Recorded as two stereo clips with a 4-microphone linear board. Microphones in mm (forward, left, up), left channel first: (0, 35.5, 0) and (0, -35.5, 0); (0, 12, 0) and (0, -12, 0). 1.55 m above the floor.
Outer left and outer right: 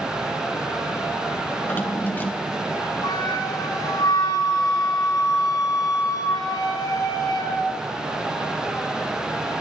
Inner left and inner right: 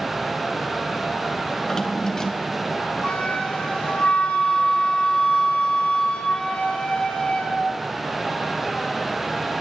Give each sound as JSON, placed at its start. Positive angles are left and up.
{"t": 1.6, "sound": "a drawer", "side_deg": 30, "distance_m": 2.5}
{"t": 3.0, "sound": "a flute", "side_deg": 70, "distance_m": 6.5}